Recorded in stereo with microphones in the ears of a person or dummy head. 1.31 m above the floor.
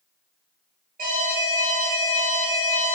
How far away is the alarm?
About 1.5 m.